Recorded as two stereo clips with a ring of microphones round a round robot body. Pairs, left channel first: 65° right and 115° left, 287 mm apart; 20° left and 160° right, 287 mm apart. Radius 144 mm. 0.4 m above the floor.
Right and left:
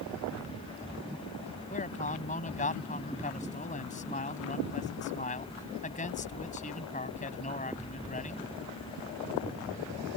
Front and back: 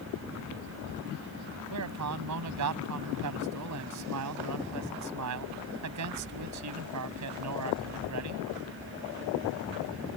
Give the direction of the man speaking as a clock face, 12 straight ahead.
4 o'clock.